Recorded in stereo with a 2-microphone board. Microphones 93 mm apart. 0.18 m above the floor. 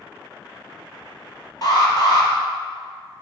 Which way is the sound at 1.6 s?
45° left (ahead or behind).